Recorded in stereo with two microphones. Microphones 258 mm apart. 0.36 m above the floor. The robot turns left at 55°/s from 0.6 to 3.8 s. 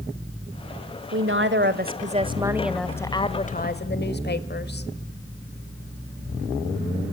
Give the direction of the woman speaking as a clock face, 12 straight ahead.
3 o'clock.